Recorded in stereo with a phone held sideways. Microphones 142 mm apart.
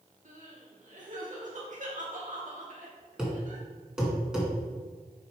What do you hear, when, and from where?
0.2 s crying: 60° right (ahead or behind), 1.8 m
3.2 s a thud: 5° right (ahead or behind), 2 m